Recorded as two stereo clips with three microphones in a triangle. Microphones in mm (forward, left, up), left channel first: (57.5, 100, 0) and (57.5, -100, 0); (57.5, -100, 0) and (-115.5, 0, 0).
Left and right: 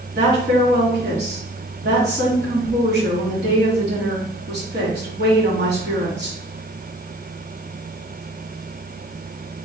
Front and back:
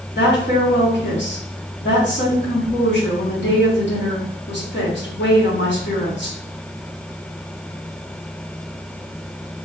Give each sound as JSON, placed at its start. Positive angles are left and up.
{"t": 0.1, "sound": "a woman speaking", "azimuth_deg": -55, "distance_m": 2.5}